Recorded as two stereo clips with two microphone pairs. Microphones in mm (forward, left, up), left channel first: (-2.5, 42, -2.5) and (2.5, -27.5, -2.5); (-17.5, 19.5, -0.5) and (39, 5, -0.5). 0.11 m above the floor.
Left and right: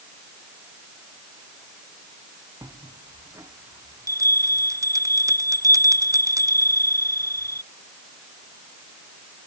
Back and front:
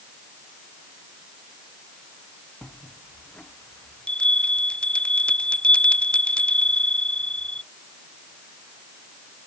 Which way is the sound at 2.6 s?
125° right.